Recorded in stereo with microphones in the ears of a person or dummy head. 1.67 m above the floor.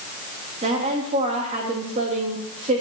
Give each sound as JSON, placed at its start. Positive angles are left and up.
{"t": 0.6, "sound": "a woman speaking", "side_deg": -40, "distance_m": 3.0}